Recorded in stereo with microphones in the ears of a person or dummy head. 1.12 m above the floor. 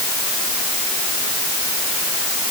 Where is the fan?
No fan in this recording.